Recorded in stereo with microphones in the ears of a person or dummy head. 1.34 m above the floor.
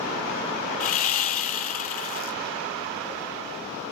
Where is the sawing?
45° left (ahead or behind), 0.6 m.